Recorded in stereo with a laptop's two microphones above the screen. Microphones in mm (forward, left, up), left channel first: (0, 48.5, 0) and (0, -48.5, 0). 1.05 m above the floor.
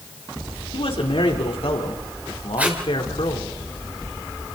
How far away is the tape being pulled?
About 2.5 m.